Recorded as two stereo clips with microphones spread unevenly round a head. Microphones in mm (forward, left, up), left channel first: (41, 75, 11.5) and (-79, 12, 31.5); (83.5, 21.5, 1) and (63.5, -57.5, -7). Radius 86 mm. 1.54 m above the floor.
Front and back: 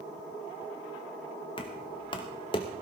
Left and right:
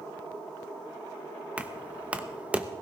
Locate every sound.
1.6 s knocking: 30° right, 0.9 m